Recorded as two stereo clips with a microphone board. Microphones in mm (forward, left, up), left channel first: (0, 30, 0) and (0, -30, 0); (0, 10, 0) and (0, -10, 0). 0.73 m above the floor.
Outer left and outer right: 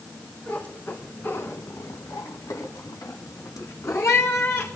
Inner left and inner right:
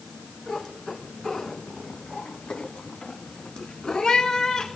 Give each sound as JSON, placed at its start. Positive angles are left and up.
{"t": 0.5, "sound": "a cat meowing", "side_deg": 30, "distance_m": 2.0}